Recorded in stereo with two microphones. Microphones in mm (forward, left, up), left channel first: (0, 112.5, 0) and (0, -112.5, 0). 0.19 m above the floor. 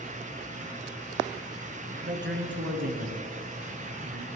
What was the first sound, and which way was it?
A man speaking, 55° right (ahead or behind).